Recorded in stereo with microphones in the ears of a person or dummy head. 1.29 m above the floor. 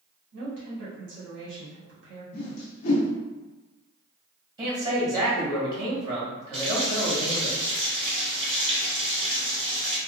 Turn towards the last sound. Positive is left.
turn(degrees=-40)  # may be behind; listen again after turning